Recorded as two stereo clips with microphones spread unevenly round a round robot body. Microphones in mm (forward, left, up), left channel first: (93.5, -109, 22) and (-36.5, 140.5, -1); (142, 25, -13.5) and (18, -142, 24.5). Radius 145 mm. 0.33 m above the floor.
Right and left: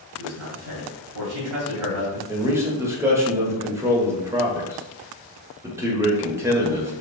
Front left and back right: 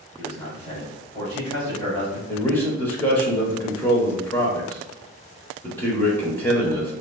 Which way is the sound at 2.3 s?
65° left.